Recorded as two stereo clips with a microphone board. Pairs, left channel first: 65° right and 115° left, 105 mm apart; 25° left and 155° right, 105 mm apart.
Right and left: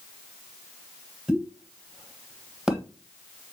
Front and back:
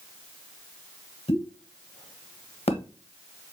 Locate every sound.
1.3 s a pop: 25° left, 1.4 m